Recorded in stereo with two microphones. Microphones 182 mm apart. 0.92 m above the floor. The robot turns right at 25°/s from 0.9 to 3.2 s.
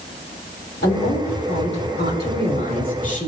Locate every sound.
0.8 s a woman speaking: 75° left, 3 m; by 3.3 s 135° left, 3 m